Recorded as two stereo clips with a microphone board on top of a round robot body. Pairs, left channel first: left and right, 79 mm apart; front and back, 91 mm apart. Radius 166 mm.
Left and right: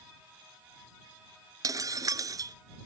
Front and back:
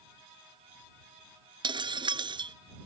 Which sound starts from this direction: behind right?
Breaking glass, at 1.6 s.